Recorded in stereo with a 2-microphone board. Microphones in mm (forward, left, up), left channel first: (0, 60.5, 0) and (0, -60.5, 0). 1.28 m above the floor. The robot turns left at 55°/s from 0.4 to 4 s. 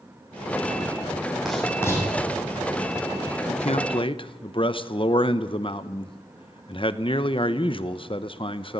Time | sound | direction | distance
1.4 | writing | 5° right (ahead or behind) | 7.5 m
3.5 | a man speaking | 75° left (ahead or behind) | 1.0 m